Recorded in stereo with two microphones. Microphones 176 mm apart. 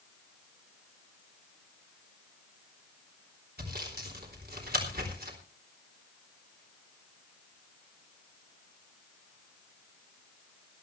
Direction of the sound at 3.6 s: 65° right (ahead or behind).